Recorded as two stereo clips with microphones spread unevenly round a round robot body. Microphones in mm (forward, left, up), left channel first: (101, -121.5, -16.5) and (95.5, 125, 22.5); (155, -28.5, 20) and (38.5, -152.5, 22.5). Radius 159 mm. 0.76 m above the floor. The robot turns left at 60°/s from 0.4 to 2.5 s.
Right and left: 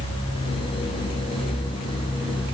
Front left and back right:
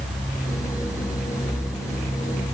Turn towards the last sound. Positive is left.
No sound to turn to.